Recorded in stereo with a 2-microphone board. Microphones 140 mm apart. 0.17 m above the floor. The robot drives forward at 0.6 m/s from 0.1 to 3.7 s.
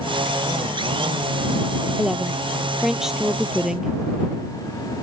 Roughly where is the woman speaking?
Centre.